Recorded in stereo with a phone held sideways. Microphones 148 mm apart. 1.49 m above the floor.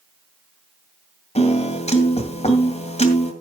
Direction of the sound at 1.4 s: 45° left (ahead or behind).